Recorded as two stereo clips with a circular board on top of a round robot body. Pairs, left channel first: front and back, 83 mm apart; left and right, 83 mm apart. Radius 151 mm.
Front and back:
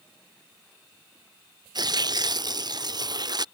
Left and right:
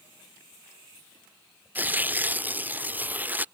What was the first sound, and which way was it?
Tearing paper, 155° right.